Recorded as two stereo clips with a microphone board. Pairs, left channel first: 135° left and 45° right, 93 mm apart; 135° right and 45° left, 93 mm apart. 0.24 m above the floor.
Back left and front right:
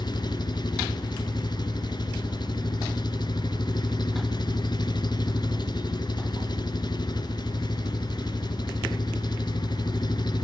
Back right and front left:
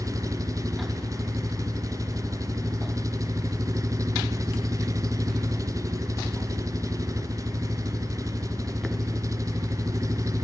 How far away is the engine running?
About 1.5 m.